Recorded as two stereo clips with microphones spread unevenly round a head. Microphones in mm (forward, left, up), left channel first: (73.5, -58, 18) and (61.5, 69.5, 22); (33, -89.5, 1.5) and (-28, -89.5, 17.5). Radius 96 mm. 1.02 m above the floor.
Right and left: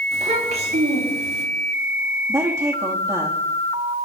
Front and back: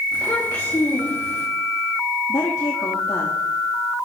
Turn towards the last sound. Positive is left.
turn(degrees=30)